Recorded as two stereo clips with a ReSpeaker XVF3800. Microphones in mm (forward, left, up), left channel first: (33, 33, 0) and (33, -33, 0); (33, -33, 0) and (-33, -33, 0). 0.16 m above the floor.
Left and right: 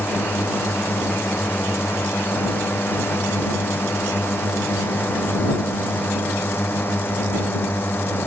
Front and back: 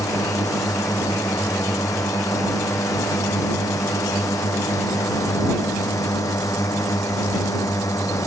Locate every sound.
0.0 s a drone: 35° left